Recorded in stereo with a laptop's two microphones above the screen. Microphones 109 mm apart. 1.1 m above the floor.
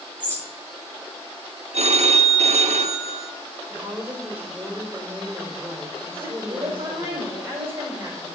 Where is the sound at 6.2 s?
25° right (ahead or behind), 4 m.